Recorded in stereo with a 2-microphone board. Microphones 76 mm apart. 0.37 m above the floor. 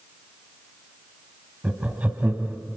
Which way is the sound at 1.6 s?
20° right (ahead or behind).